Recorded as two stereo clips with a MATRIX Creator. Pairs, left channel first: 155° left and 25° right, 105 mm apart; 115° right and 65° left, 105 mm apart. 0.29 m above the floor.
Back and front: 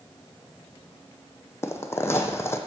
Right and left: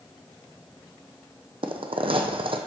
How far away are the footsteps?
About 0.7 m.